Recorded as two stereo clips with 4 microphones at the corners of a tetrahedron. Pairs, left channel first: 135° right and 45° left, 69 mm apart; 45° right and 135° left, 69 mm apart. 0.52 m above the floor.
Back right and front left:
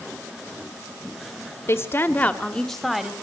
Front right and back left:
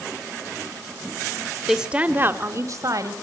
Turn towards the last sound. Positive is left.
turn(degrees=130)